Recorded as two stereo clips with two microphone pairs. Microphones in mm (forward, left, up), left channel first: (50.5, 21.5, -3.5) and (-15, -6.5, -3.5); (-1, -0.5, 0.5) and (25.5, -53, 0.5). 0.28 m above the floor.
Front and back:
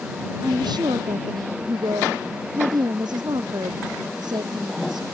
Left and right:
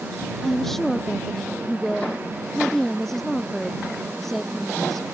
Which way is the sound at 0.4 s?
155° right.